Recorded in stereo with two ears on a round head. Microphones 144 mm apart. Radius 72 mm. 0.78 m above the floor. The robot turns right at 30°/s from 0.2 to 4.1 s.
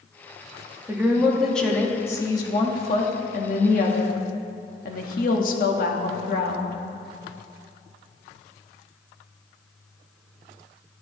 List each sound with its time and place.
0.9 s a woman speaking: 15° right, 1.6 m; by 6.8 s 80° left, 1.6 m